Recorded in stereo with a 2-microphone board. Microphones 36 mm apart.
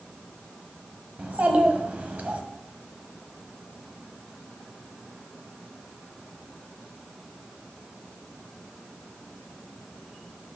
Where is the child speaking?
50° right (ahead or behind), 1.2 m.